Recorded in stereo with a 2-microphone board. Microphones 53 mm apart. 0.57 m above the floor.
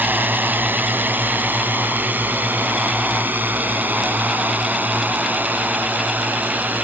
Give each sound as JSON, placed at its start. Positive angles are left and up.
{"t": 0.0, "sound": "a drone", "side_deg": -40}